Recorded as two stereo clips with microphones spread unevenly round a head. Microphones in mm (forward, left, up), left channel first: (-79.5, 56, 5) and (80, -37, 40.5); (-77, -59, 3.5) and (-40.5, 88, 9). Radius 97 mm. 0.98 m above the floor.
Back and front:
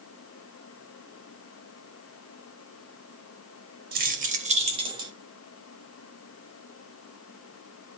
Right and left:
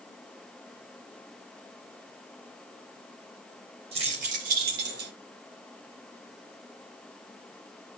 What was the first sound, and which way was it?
Keys jangling, 10° left.